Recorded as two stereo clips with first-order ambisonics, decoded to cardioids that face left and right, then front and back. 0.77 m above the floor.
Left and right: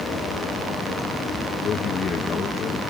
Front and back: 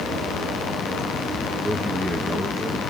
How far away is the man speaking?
About 0.7 m.